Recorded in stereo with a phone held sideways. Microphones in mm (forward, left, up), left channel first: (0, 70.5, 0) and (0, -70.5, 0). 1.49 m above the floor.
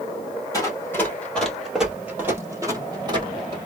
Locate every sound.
0.5 s running footsteps: 20° left (ahead or behind), 1.6 m; by 3.6 s 35° right (ahead or behind), 1.8 m